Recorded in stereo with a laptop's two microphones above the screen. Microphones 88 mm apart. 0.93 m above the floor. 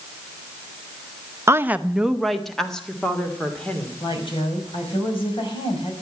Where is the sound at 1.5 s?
30° right (ahead or behind), 0.5 m; by 3.9 s 10° left (ahead or behind), 2.5 m.